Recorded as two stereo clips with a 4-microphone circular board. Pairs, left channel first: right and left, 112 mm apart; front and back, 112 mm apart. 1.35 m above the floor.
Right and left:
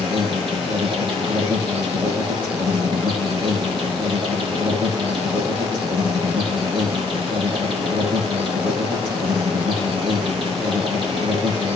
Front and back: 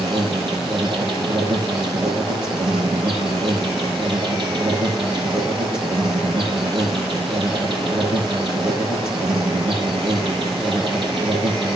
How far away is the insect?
About 8.5 m.